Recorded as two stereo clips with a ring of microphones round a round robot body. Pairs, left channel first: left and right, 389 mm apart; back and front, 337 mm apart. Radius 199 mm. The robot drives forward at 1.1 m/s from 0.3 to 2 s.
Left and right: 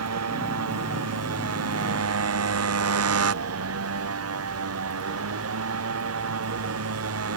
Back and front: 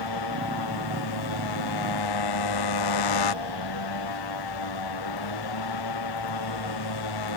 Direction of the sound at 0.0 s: 145° right.